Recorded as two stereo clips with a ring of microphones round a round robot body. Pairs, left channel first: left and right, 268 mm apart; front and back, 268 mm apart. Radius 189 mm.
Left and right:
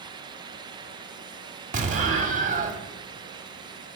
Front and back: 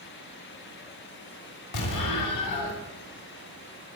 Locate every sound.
1.7 s an explosion: 25° right, 1.8 m